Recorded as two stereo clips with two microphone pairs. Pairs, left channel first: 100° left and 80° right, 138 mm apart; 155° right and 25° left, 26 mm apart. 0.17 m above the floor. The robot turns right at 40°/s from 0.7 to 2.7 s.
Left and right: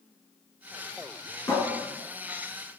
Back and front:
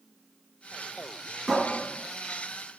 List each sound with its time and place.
1.5 s a cupboard door: 115° left, 1.7 m; by 1.6 s 120° left, 1.7 m